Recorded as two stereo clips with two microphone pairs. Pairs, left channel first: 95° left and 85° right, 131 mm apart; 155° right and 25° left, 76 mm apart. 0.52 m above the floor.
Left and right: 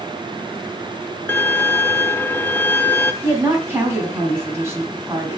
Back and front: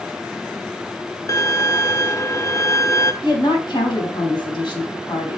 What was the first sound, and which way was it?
A violin, 165° left.